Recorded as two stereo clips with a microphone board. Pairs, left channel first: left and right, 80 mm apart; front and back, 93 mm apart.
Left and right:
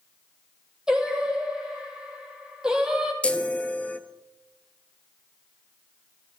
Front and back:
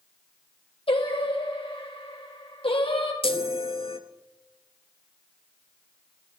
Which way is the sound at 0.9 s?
10° right.